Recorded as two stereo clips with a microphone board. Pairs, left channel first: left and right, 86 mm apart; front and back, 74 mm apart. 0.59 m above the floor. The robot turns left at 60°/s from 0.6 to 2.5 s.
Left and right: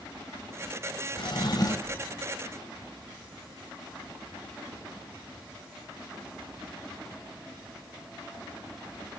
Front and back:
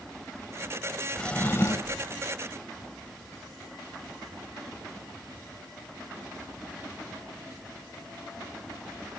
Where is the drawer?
80° left, 0.8 m; by 2.1 s 25° left, 0.8 m.